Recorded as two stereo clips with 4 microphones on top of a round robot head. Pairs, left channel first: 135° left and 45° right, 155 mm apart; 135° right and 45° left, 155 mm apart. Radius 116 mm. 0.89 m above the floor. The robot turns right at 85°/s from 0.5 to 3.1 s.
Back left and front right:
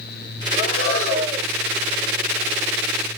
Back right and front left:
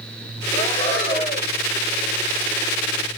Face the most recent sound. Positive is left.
turn(degrees=0)